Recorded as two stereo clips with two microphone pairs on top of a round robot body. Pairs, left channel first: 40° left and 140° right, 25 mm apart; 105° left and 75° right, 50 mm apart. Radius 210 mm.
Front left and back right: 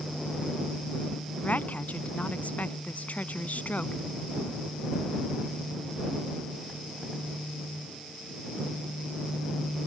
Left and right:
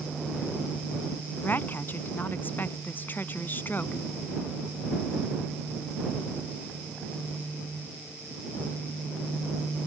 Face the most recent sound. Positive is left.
turn(degrees=55)